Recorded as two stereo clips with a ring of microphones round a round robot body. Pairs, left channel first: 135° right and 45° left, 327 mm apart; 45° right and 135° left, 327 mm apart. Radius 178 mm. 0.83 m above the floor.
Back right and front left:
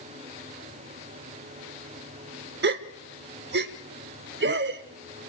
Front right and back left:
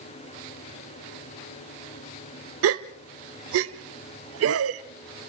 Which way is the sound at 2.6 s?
95° left.